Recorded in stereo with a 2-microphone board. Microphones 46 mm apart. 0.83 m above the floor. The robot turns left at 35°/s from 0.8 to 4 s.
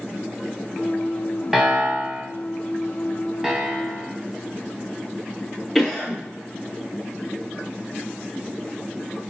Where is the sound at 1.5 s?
10° right (ahead or behind), 0.7 m; by 2.2 s 30° right (ahead or behind), 0.7 m.